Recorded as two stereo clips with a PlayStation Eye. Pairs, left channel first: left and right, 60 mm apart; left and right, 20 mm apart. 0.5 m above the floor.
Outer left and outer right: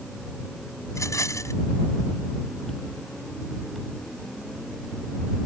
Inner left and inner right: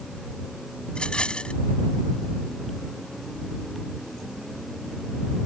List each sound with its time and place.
0.9 s a rattle: 60° left (ahead or behind)